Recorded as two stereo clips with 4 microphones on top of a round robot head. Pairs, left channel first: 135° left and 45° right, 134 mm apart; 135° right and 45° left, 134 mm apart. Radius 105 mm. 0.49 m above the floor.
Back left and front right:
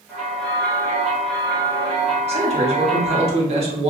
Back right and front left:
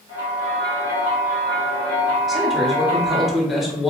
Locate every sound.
0.1 s a bell: 50° left, 1.2 m
2.3 s a man speaking: 45° right, 1.0 m